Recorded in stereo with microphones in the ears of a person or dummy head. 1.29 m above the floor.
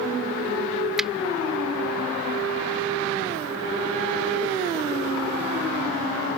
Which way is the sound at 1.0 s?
5° right (ahead or behind).